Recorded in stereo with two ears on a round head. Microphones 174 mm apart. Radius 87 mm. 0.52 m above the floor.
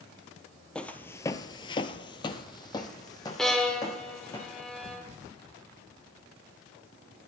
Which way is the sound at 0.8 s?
5° left (ahead or behind).